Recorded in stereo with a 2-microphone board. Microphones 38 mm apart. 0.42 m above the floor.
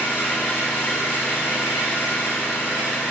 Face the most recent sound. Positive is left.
turn(degrees=70)  # may be behind; listen again after turning